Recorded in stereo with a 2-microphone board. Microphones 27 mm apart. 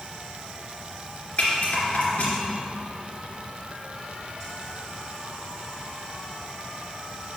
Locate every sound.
1.4 s a rattle: 45° left (ahead or behind), 2.5 m